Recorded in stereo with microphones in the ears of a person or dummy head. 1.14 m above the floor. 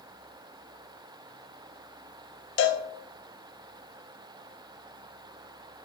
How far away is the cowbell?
About 0.6 m.